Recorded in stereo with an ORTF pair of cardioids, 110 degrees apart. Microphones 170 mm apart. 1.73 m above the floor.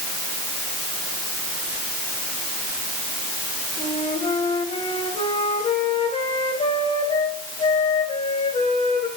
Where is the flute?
35° left, 4 m.